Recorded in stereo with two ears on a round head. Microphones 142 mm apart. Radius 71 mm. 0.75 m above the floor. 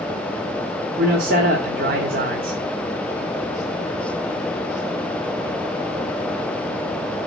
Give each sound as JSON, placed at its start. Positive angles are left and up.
{"t": 1.0, "sound": "a man speaking", "side_deg": -60, "distance_m": 1.4}